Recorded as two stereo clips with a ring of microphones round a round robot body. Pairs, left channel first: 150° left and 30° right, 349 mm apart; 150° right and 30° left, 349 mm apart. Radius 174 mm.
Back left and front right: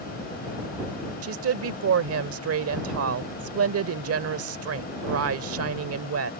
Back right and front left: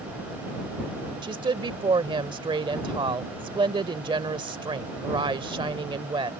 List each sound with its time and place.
1.2 s a woman speaking: 40° right